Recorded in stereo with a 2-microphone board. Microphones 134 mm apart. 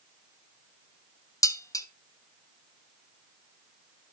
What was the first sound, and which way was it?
Dishes clattering, 25° left (ahead or behind).